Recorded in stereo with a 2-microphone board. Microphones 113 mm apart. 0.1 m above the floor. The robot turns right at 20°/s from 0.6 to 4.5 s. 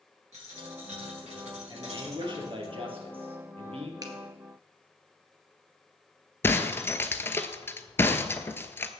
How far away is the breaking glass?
About 0.9 m.